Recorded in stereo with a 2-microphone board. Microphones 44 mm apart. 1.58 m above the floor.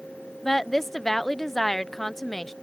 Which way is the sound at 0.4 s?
5° left (ahead or behind).